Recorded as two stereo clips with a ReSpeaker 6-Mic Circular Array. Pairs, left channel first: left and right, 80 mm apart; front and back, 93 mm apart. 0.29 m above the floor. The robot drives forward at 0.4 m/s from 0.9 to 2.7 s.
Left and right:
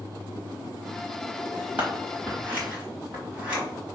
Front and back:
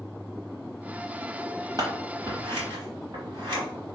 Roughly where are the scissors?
Behind right.